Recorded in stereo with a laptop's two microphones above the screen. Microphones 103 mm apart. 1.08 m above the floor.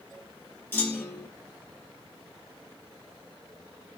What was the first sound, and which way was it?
A clunk, 20° left (ahead or behind).